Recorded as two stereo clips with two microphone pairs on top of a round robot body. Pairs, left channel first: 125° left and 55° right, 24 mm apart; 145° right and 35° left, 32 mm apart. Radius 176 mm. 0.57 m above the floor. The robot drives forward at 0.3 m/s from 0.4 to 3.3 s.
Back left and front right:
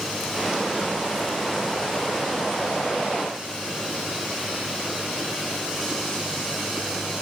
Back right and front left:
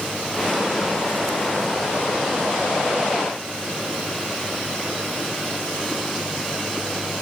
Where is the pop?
No pop in this recording.